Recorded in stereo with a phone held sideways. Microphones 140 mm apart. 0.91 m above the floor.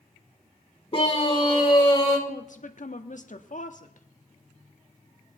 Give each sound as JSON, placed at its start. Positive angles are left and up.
{"t": 0.9, "sound": "a scream", "side_deg": 40, "distance_m": 2.5}
{"t": 2.3, "sound": "a woman speaking", "side_deg": 65, "distance_m": 1.3}